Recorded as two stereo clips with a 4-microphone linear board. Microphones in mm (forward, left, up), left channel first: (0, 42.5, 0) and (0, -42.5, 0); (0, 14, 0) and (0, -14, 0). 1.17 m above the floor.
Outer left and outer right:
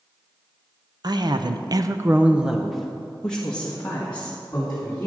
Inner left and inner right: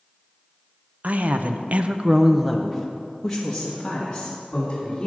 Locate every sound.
1.0 s a woman speaking: 50° right (ahead or behind), 0.8 m; by 5.1 s 20° left (ahead or behind), 2.5 m